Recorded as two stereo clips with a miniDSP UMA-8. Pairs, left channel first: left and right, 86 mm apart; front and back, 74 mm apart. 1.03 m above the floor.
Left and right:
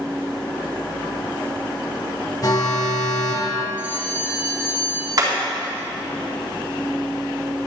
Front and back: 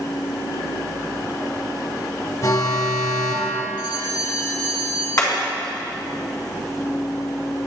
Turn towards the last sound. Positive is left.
turn(degrees=-45)